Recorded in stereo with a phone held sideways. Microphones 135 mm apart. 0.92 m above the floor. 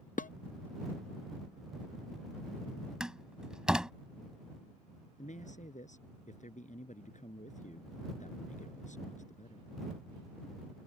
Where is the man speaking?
65° left (ahead or behind).